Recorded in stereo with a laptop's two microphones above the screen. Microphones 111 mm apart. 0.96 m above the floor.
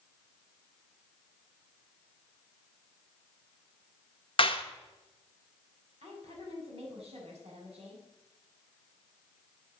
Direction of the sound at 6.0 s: 80° right.